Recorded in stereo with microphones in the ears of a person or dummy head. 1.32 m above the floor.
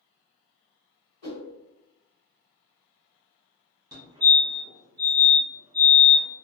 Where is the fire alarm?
15° right (ahead or behind), 1.2 m.